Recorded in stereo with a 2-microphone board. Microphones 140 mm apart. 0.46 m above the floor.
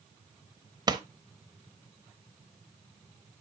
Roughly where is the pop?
Right.